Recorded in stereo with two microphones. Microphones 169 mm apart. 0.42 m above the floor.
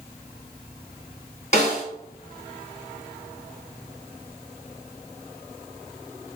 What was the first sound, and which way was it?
A snare drum, 45° left (ahead or behind).